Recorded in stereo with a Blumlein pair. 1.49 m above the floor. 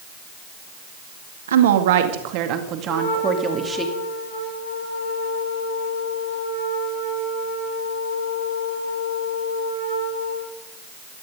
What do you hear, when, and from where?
1.5 s a woman speaking: 65° right, 2.5 m; by 3.9 s 10° right, 3 m
2.9 s a trumpet: 60° left, 7 m